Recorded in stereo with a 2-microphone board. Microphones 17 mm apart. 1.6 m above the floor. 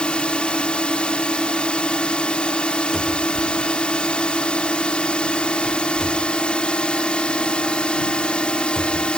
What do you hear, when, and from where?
0.0 s a drone: 75° left (ahead or behind)
2.9 s a cupboard door: 10° left (ahead or behind)